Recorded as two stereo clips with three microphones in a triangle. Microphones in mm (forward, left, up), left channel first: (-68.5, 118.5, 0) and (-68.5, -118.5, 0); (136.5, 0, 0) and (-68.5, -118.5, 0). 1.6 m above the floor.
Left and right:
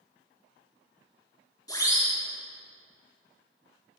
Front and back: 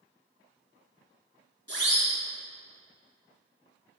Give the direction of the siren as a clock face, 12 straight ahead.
11 o'clock.